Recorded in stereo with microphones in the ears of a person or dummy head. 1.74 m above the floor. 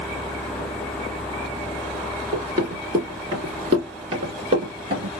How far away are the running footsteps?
About 1.8 m.